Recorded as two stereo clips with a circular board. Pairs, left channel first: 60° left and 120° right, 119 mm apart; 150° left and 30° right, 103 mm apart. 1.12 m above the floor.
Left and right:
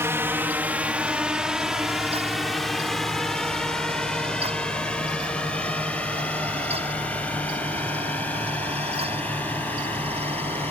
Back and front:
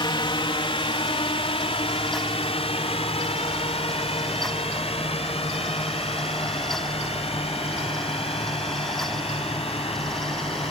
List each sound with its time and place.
0.0 s a drone: 175° left; by 10.7 s 135° left